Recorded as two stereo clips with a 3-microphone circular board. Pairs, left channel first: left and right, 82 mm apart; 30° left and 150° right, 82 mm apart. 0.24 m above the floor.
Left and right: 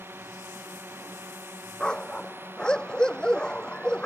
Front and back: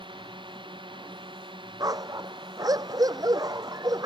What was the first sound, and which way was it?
A drone, 155° right.